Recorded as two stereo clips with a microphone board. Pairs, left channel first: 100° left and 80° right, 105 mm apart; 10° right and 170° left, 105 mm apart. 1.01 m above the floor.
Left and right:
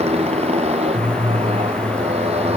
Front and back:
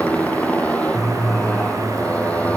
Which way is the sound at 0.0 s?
90° right.